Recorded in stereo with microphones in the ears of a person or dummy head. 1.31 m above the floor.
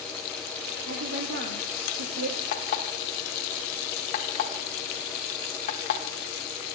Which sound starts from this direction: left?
An alarm clock, at 2.5 s.